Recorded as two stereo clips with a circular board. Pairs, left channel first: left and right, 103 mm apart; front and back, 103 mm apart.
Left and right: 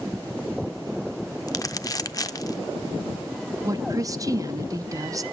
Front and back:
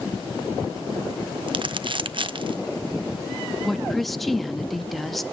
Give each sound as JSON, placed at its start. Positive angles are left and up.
{"t": 1.5, "sound": "crumpling", "azimuth_deg": 145, "distance_m": 0.5}
{"t": 3.6, "sound": "a woman speaking", "azimuth_deg": -90, "distance_m": 0.6}